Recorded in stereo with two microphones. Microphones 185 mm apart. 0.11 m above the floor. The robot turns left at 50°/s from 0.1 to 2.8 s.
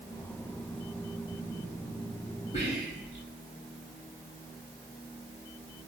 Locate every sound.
2.5 s whispering: 35° left (ahead or behind), 1.8 m; by 3.2 s 40° left (ahead or behind), 1.8 m